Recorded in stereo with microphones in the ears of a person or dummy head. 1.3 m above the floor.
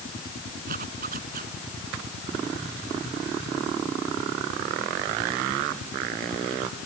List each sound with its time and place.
0.7 s a zipper: 45° right (ahead or behind)